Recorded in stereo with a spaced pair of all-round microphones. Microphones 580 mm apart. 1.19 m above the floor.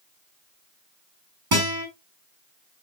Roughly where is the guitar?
Right.